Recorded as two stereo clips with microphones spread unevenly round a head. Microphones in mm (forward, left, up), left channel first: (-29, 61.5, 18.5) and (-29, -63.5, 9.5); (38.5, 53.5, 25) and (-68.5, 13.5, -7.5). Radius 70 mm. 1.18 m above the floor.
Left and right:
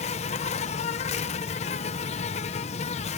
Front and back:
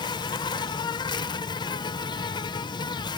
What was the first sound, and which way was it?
An insect, 75° left.